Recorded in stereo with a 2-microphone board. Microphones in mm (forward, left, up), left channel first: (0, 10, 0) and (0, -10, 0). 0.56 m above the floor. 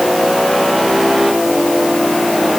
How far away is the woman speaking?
No woman speaking in this recording.